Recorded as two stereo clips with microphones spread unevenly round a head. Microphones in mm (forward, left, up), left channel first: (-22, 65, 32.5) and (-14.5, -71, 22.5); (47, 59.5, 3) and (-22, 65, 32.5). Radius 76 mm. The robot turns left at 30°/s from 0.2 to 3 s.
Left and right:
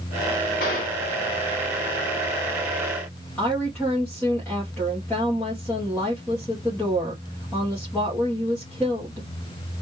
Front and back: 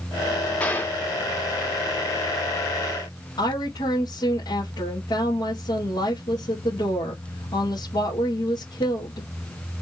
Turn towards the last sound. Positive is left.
turn(degrees=15)